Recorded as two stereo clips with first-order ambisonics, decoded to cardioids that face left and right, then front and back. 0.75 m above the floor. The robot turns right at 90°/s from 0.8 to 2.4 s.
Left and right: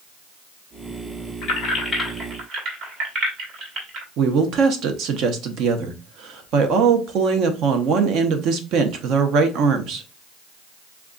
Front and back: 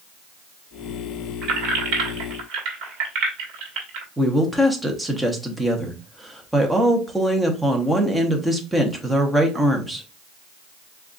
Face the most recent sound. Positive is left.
turn(degrees=-95)